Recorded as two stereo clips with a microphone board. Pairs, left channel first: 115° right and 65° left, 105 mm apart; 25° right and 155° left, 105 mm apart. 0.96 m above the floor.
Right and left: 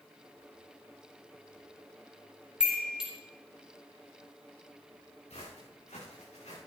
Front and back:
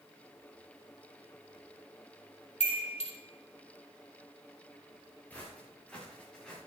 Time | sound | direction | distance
2.6 | a chime | 15° right | 4 m
5.3 | footsteps | 100° right | 6.5 m